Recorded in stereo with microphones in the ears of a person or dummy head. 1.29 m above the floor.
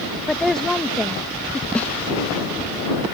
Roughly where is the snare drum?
Centre.